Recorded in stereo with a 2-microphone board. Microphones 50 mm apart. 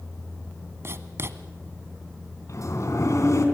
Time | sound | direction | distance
0.8 | writing | 55° right (ahead or behind) | 1.1 m
2.5 | a sliding door | 65° left (ahead or behind) | 3 m